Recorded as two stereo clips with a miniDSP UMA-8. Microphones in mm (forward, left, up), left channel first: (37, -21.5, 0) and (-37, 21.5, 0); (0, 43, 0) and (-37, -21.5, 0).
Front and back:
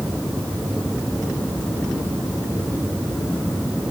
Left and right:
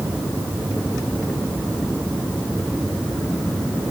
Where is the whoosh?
No whoosh in this recording.